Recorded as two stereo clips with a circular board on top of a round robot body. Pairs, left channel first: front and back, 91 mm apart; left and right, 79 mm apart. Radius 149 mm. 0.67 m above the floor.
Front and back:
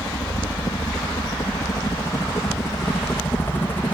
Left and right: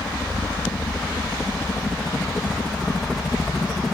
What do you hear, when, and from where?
0.0 s a helicopter: 20° left; by 4.0 s 10° right